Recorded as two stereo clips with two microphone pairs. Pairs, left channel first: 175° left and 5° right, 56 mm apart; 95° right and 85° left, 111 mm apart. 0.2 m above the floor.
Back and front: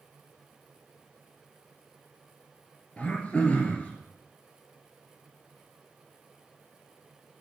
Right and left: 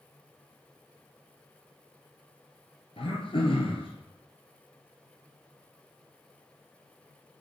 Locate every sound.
3.0 s throat clearing: 120° right, 1.6 m